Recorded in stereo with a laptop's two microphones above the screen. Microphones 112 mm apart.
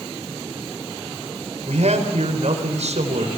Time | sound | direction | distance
1.6 | a man speaking | 80° right | 4 m